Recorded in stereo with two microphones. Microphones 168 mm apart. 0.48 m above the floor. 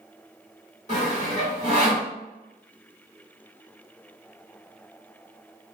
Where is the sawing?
45° left (ahead or behind), 1.8 m.